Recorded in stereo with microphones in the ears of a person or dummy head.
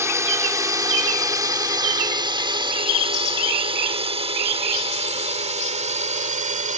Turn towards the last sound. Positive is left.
turn(degrees=-40)  # may be behind; listen again after turning